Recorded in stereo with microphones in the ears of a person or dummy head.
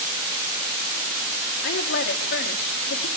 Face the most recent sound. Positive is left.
turn(degrees=60)  # may be behind; listen again after turning